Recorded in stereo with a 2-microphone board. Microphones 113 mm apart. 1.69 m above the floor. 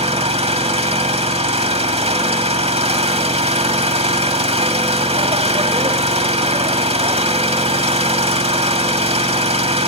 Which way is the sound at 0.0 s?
65° right (ahead or behind).